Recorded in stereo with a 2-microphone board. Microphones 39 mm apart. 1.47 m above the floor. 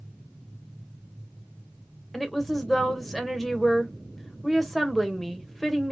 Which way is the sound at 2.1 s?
5° left (ahead or behind).